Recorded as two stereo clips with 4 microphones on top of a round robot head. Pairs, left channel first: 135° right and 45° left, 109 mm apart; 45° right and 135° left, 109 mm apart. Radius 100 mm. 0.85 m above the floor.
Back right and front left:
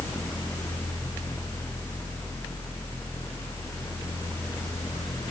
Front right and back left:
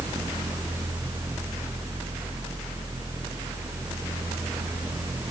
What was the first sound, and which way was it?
Only background noise.